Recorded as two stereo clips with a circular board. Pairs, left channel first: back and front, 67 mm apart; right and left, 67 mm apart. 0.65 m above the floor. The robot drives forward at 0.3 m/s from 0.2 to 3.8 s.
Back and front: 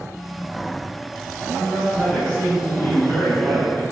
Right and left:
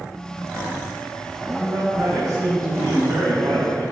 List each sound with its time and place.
1.6 s a man speaking: 110° left, 4.5 m; by 3.8 s 115° left, 5 m